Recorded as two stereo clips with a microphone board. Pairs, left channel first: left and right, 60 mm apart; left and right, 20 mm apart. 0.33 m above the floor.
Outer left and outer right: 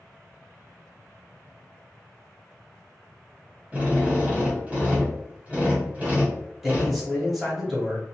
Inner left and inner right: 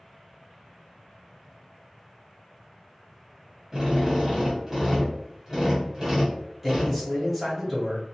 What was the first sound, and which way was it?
A drill, 20° right (ahead or behind).